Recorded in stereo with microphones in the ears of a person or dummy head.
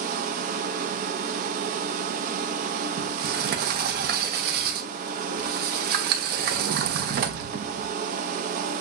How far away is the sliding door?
About 0.8 m.